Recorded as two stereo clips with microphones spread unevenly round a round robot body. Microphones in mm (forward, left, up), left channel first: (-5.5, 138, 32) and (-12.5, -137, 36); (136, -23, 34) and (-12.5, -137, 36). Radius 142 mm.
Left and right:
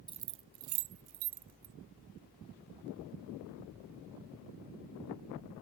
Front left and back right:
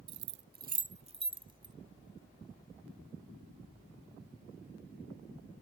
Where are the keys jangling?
165° right; by 1.7 s 75° right.